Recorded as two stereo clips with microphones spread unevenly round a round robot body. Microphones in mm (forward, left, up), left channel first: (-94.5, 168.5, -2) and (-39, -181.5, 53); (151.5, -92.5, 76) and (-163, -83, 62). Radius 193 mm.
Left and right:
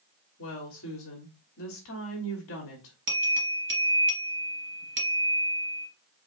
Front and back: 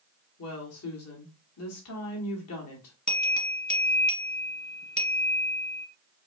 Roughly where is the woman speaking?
Ahead left.